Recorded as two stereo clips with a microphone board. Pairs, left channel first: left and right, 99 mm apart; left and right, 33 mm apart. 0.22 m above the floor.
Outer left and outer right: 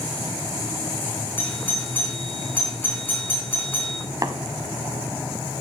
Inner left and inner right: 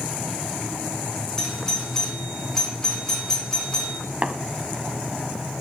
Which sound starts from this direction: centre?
A doorbell, at 1.4 s.